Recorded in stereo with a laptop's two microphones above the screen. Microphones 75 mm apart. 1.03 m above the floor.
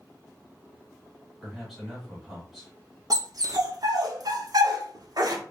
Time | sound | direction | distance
1.4 | a man speaking | 5° right (ahead or behind) | 1.7 m
3.1 | a dog barking | 55° right (ahead or behind) | 0.9 m